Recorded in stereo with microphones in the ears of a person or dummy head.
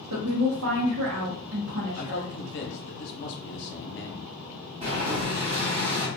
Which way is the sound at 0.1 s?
80° right.